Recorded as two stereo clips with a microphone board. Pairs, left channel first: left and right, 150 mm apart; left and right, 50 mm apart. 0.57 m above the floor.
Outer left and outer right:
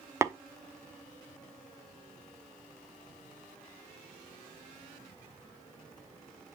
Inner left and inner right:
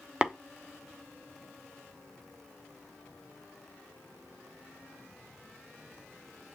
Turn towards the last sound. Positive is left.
turn(degrees=-15)  # may be behind; listen again after turning